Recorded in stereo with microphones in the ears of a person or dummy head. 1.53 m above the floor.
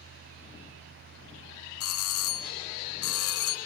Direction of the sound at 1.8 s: 65° left (ahead or behind).